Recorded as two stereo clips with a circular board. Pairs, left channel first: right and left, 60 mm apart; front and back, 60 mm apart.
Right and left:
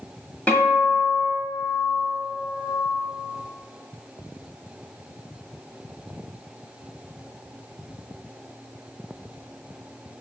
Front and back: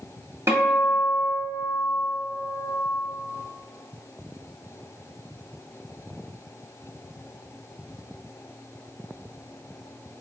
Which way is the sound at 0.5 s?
155° right.